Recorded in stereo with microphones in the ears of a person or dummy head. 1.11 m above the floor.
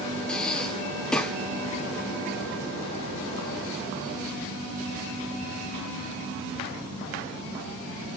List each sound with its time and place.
0.3 s breathing: 5° left (ahead or behind), 1.1 m